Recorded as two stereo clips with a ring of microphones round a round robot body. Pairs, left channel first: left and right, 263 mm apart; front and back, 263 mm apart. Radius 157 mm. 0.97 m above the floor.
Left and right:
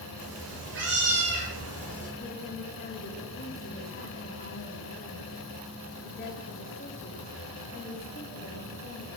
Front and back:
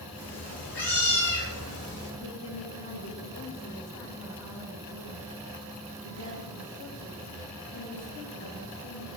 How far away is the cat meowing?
About 9 m.